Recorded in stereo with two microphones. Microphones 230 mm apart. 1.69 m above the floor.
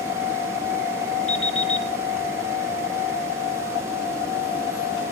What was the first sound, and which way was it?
An alarm clock, 60° left (ahead or behind).